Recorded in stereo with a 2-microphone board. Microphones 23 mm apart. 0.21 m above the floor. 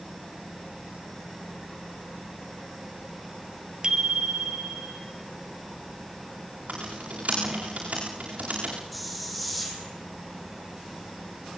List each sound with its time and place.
3.8 s a bicycle bell: 35° right (ahead or behind), 3 m
6.7 s typing on a keyboard: 70° right (ahead or behind), 10 m
8.9 s a hiss: centre (ahead or behind), 5.5 m